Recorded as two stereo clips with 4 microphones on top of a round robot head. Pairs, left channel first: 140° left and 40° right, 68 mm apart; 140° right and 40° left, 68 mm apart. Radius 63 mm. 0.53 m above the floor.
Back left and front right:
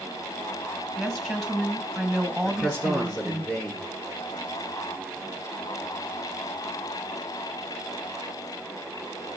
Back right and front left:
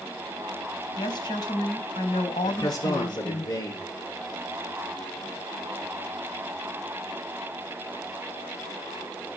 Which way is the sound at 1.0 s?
135° right.